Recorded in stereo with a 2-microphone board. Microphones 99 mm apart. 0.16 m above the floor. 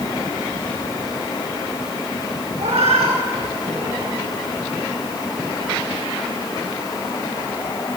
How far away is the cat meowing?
About 3.5 m.